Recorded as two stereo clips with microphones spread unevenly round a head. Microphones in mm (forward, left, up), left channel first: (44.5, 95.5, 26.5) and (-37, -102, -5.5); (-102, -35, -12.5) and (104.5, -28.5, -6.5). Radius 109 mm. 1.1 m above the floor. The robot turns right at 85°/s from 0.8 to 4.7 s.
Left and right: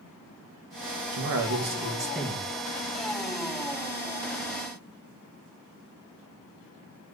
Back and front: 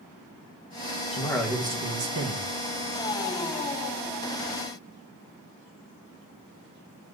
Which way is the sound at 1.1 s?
115° right.